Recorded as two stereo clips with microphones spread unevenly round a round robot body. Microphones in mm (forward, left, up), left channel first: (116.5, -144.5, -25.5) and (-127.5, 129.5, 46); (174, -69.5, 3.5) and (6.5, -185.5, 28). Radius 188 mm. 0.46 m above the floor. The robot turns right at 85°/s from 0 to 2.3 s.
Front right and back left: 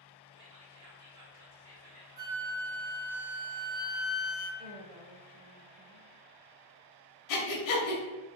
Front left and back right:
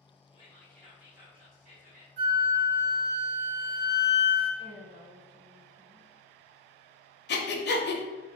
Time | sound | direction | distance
0.3 | whispering | 65° left | 0.9 m
2.2 | a flute | 100° right | 1.7 m
4.6 | a woman speaking | 165° left | 0.8 m
7.3 | breathing | 10° right | 0.7 m